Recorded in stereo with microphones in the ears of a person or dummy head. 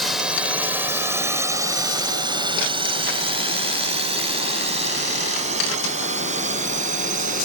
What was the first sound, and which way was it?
A drone, centre (ahead or behind).